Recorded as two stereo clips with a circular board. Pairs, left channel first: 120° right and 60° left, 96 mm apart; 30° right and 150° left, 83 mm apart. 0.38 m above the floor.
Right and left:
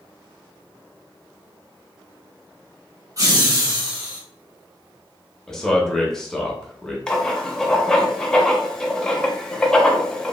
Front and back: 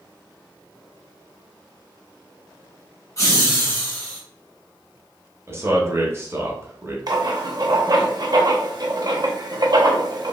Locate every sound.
3.2 s laughter: 15° left, 1.5 m; by 4.2 s 40° left, 1.6 m
5.5 s a man speaking: 160° left, 0.9 m
7.1 s writing: 160° left, 0.6 m